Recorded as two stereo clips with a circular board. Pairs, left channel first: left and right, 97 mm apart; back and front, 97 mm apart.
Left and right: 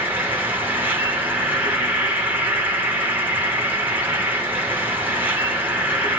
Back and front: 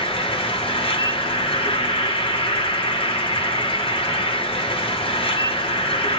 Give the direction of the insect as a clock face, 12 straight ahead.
5 o'clock.